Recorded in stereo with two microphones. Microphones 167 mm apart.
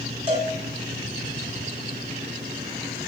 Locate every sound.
0.3 s a cowbell: 35° right (ahead or behind), 2.5 m